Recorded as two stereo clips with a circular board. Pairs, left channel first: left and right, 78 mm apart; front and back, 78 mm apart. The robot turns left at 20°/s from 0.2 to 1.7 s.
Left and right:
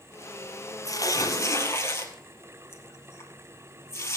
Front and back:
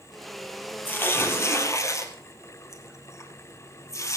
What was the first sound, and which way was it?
Tearing paper, 60° left.